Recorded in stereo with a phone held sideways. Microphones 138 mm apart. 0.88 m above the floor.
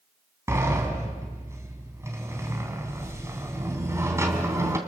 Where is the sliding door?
20° right (ahead or behind), 3 m.